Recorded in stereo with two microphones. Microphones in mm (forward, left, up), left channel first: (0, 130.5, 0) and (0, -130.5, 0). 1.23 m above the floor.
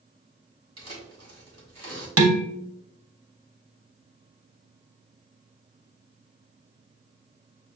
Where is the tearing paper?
65° right (ahead or behind), 1.5 m.